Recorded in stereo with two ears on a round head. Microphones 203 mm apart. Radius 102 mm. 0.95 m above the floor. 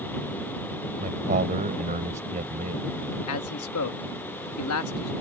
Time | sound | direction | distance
1.0 | a man speaking | 35° right (ahead or behind) | ?
3.3 | a man speaking | 70° left (ahead or behind) | ?